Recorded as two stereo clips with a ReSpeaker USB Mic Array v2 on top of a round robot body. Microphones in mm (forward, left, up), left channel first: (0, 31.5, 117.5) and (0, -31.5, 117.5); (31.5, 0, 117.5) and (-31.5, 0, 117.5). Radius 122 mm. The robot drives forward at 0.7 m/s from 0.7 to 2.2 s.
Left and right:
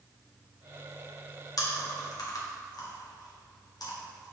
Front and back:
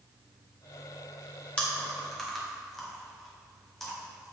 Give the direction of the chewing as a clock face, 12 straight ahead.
10 o'clock.